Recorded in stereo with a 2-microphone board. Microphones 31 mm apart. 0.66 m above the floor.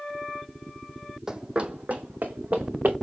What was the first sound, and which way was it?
Running footsteps, 15° right (ahead or behind).